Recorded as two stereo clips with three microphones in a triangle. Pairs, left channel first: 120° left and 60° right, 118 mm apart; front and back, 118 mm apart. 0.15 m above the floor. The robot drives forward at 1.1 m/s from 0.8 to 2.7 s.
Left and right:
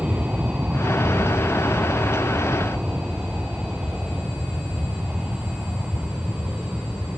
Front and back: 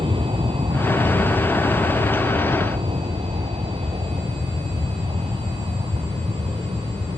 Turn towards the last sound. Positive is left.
turn(degrees=-140)